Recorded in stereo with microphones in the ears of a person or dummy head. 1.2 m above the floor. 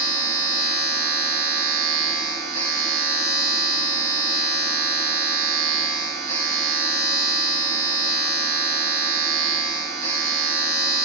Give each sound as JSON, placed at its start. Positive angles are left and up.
{"t": 0.0, "sound": "a machine running", "side_deg": -30, "distance_m": 3.5}